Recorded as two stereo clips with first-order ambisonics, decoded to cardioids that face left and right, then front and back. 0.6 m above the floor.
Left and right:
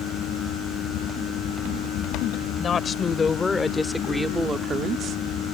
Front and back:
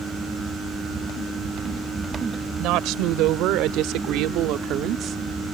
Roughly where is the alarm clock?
I don't hear an alarm clock.